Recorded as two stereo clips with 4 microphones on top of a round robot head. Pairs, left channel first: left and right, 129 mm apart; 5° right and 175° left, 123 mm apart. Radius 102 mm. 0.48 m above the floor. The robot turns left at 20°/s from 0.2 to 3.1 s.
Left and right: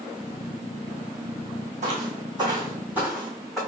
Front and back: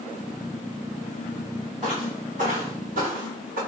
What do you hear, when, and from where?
1.8 s footsteps: 120° right, 1.7 m; by 3.6 s straight behind, 2.5 m